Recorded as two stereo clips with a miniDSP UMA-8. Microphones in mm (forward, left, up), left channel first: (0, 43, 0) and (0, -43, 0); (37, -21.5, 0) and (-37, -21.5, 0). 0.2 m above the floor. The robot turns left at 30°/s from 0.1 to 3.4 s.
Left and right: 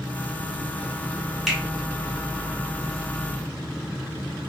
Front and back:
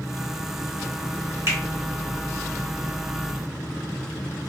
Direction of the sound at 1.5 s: 175° right.